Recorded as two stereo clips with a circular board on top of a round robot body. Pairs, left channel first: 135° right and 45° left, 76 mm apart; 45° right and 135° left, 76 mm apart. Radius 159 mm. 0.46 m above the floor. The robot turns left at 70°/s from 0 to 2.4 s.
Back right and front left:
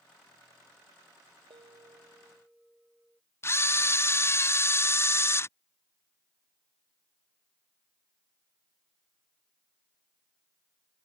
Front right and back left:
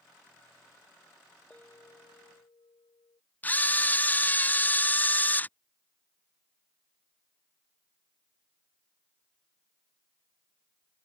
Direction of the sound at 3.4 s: 100° right.